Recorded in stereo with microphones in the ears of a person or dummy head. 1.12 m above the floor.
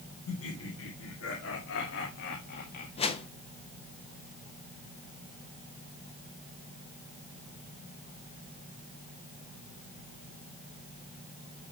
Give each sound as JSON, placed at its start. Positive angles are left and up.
{"t": 0.3, "sound": "laughter", "side_deg": 80, "distance_m": 2.5}
{"t": 3.0, "sound": "a whoosh", "side_deg": 25, "distance_m": 0.6}